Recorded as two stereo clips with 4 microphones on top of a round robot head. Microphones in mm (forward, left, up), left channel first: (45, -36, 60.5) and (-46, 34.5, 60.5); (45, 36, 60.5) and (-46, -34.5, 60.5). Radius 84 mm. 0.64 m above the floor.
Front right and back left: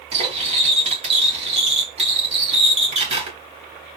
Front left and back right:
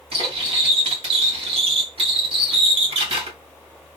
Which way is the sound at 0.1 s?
175° left.